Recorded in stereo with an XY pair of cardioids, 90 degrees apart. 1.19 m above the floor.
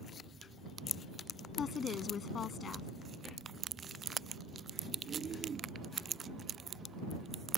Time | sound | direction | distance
1.6 | a woman speaking | 55° left | ?